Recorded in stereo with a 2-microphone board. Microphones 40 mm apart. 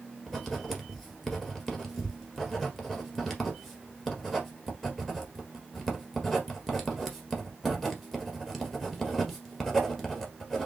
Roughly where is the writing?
Centre.